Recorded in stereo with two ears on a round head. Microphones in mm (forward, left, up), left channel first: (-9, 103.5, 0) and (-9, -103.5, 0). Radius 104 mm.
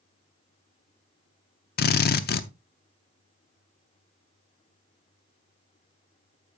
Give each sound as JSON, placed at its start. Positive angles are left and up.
{"t": 1.8, "sound": "a drill", "side_deg": 45, "distance_m": 0.7}